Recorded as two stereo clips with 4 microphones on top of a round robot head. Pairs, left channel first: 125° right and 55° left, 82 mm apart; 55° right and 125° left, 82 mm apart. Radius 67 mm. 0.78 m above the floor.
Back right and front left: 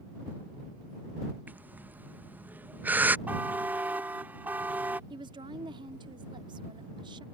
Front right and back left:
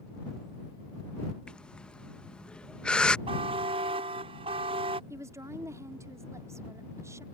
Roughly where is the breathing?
Ahead.